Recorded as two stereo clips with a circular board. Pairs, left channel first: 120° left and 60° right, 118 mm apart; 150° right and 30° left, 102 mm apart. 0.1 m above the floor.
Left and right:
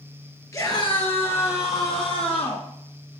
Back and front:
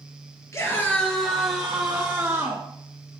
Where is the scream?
170° left, 1.5 m; by 2.6 s 100° left, 3.5 m.